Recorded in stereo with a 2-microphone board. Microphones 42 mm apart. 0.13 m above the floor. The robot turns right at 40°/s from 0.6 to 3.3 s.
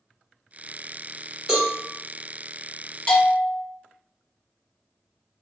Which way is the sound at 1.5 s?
5° right (ahead or behind).